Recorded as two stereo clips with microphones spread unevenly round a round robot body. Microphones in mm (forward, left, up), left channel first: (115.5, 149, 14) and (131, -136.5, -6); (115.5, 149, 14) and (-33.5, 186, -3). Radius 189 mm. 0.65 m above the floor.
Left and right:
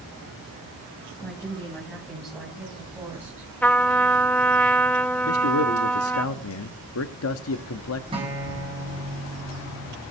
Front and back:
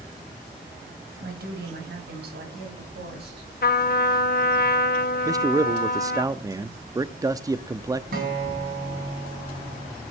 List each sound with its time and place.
1.2 s a woman speaking: 175° left, 4 m; by 3.5 s 170° right, 5 m
3.6 s a trumpet: 10° left, 1.1 m
5.2 s a man speaking: 115° left, 0.8 m
8.1 s a guitar: 165° right, 3 m